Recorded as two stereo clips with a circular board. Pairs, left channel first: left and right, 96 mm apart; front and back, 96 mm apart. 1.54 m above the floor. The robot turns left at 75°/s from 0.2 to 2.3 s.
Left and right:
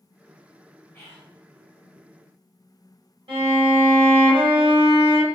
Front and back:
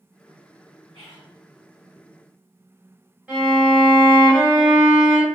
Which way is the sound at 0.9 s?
155° left.